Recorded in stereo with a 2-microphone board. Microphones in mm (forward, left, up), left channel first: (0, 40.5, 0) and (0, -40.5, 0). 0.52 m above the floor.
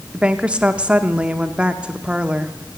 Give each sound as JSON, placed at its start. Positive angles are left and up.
{"t": 0.1, "sound": "a woman speaking", "side_deg": -15, "distance_m": 0.7}